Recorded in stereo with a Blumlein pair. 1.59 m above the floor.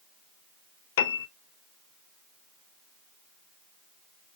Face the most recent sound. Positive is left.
turn(degrees=55)